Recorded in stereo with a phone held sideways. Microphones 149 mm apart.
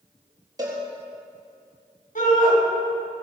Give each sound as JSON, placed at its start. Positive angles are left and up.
{"t": 0.6, "sound": "a cowbell", "side_deg": -25, "distance_m": 4.0}
{"t": 2.1, "sound": "a shout", "side_deg": 65, "distance_m": 6.5}